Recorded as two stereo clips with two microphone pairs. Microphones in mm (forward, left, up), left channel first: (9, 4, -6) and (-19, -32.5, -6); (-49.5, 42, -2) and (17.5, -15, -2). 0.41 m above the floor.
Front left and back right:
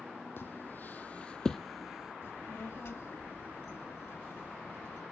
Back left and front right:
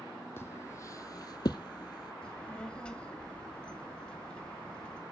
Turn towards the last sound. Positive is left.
turn(degrees=65)